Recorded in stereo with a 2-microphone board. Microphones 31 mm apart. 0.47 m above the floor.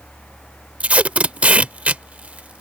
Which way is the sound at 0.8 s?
45° right (ahead or behind).